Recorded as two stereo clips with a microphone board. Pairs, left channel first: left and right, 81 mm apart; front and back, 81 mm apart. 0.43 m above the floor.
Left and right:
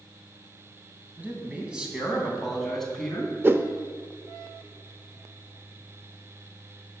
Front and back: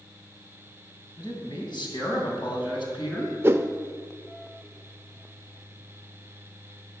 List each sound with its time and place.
1.2 s a man speaking: 20° right, 3 m; by 3.3 s 10° left, 3.5 m
3.4 s a whoosh: 140° right, 0.7 m